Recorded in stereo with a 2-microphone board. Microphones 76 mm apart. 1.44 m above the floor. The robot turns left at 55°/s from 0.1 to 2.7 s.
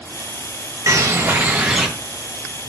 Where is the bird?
120° right, 0.6 m; by 1.9 s 175° right, 0.6 m.